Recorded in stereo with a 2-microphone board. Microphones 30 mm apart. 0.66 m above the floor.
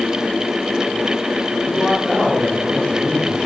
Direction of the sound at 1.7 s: 5° left (ahead or behind).